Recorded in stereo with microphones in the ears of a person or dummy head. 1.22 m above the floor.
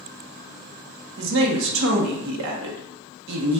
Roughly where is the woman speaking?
Right.